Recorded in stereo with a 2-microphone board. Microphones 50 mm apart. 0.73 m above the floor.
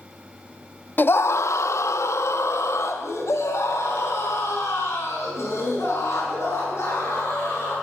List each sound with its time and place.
1.0 s a scream: 40° left (ahead or behind), 0.7 m; by 7.7 s 65° left (ahead or behind), 9.5 m